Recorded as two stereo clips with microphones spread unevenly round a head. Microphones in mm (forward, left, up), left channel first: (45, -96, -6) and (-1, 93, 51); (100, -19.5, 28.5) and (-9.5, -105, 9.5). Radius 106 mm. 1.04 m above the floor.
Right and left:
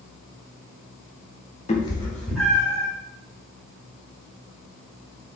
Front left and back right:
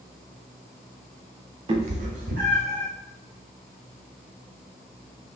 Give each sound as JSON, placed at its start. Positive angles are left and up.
{"t": 1.7, "sound": "a cat meowing", "azimuth_deg": -140, "distance_m": 0.7}